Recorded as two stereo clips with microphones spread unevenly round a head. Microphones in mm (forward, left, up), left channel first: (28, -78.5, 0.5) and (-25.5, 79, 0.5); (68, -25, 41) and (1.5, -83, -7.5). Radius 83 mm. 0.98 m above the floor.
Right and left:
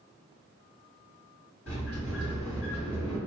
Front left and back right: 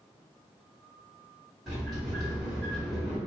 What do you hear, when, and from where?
1.7 s a sliding door: 60° right, 2.0 m